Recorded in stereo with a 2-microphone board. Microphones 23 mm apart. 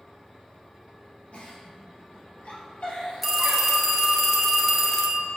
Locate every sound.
1.3 s a giggle: 60° left (ahead or behind), 2 m
3.2 s a phone ringing: centre (ahead or behind), 1.2 m